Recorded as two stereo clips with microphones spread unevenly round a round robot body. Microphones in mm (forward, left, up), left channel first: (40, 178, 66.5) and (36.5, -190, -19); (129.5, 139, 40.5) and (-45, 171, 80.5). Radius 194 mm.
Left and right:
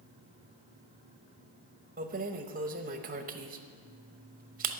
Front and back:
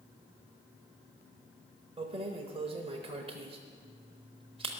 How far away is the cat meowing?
I don't hear a cat meowing.